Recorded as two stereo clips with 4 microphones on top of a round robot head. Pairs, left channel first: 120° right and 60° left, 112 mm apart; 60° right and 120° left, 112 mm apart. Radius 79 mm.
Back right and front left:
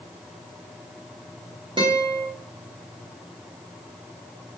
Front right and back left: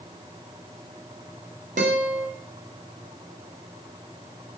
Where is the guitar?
110° left, 2.5 m.